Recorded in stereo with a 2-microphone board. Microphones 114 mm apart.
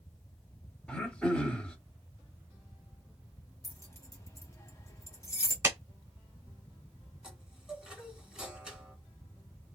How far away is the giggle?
I don't hear a giggle.